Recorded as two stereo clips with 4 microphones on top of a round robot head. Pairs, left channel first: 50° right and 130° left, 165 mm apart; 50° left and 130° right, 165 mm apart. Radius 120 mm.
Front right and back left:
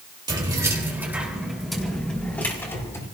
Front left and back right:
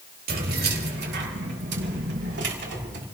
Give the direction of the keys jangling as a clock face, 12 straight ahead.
5 o'clock.